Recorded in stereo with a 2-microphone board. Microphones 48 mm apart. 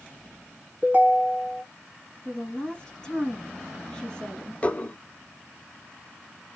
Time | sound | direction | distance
0.8 | a ringtone | 35° right (ahead or behind) | 1.4 m
2.2 | a woman speaking | 10° left (ahead or behind) | 1.9 m
4.6 | dishes clattering | 25° left (ahead or behind) | 0.7 m